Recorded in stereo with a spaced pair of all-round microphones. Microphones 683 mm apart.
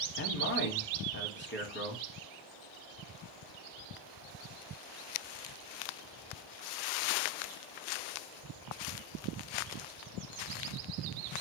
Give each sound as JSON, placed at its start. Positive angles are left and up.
{"t": 0.2, "sound": "a man speaking", "side_deg": 15, "distance_m": 0.8}